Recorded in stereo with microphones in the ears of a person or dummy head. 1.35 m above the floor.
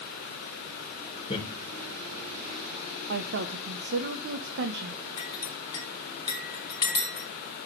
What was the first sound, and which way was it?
Laughter, 30° left (ahead or behind).